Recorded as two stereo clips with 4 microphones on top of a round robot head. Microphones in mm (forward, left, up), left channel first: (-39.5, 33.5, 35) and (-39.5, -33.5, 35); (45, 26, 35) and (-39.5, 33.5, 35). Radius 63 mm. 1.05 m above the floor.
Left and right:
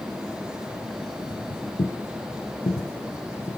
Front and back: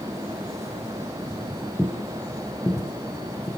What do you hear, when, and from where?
1.3 s footsteps: 85° left, 4.5 m; by 3.5 s 50° left, 6 m